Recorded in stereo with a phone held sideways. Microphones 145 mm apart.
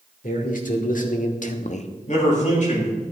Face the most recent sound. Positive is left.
turn(degrees=65)  # may be behind; listen again after turning